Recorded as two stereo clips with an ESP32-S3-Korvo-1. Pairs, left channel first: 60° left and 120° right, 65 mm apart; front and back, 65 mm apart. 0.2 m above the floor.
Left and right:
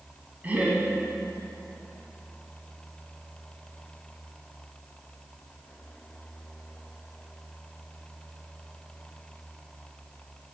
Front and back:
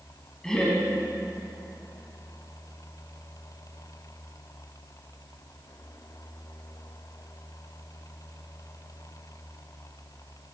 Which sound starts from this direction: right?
Laughter, at 0.4 s.